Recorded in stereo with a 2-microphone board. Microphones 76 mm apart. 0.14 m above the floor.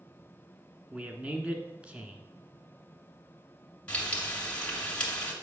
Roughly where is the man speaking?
Centre.